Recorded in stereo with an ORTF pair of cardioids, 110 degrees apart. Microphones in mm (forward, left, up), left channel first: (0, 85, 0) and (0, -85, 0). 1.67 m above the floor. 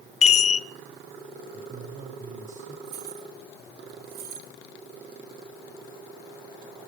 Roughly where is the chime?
Ahead left.